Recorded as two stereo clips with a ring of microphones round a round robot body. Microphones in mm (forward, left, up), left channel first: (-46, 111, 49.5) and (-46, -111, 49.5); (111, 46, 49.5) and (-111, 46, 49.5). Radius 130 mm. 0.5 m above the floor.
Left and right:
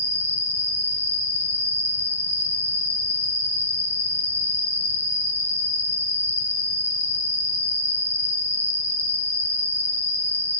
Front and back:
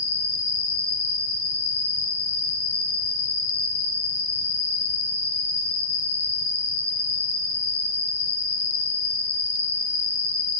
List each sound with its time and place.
0.0 s an insect: 10° right, 1.0 m